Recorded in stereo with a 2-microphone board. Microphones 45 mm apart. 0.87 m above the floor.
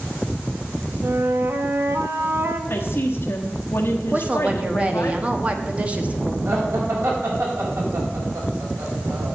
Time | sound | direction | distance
1.0 | a flute | 60° right (ahead or behind) | 1.0 m
2.7 | a woman speaking | 60° left (ahead or behind) | 1.1 m
4.1 | a woman speaking | 30° right (ahead or behind) | 1.1 m
6.5 | laughter | 75° right (ahead or behind) | 5 m